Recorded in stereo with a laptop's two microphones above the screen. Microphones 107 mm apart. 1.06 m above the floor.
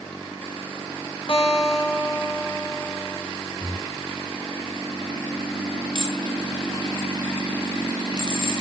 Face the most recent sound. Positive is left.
turn(degrees=45)  # may be behind; listen again after turning